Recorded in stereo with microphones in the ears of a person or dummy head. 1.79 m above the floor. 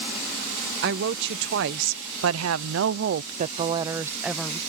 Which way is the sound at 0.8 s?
60° right (ahead or behind).